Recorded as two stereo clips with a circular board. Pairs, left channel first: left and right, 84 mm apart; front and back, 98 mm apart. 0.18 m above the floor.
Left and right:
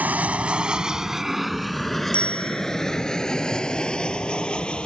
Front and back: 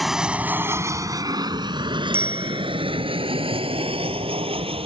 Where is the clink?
No clink in this recording.